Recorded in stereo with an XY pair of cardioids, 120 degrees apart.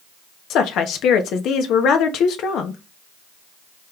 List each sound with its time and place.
0.5 s a woman speaking: 70° left, 0.9 m